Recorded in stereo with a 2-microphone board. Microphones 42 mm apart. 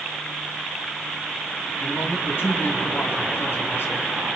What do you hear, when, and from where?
1.8 s a man speaking: 75° left (ahead or behind), 3 m